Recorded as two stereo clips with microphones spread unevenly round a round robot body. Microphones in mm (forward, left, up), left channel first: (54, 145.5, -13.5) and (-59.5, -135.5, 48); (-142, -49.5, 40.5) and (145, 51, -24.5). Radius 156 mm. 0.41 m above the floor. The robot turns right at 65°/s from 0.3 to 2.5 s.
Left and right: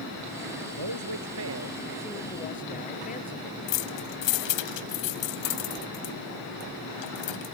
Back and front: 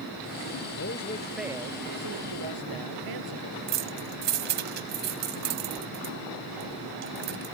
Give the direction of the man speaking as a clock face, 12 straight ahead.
4 o'clock.